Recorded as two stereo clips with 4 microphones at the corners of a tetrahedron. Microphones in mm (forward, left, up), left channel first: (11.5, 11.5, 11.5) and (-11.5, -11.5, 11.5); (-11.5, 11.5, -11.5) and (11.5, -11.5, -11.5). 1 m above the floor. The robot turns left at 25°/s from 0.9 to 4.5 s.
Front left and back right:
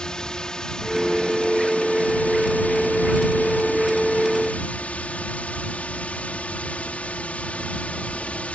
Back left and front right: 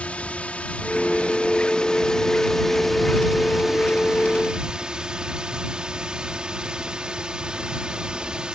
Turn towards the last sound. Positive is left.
turn(degrees=10)